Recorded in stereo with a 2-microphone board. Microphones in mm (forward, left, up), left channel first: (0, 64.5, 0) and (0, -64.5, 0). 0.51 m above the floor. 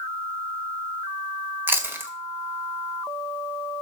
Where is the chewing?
15° right (ahead or behind), 1.8 m.